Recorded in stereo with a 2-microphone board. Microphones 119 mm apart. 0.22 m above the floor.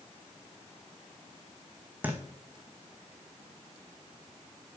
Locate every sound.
2.0 s a thud: 15° right (ahead or behind), 1.7 m